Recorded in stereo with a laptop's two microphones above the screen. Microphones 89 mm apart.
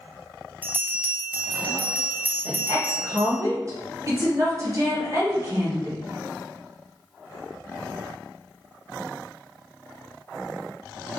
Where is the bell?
20° right (ahead or behind), 0.8 m.